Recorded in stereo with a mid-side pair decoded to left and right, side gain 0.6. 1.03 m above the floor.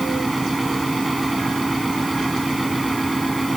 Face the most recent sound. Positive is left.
turn(degrees=-10)